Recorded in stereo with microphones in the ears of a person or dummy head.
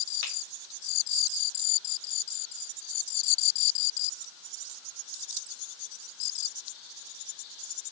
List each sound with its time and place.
0.2 s a finger snap: 55° left (ahead or behind), 3.5 m